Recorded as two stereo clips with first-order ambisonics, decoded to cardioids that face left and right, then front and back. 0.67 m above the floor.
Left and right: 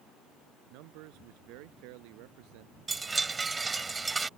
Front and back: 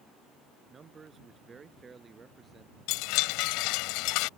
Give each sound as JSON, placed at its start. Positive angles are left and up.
{"t": 0.7, "sound": "a man speaking", "azimuth_deg": -110}
{"t": 2.9, "sound": "a chime", "azimuth_deg": -15}